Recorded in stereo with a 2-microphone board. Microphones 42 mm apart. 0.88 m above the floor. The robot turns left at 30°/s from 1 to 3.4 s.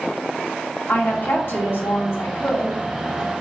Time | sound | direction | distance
0.9 | a woman speaking | 125° left | 1.6 m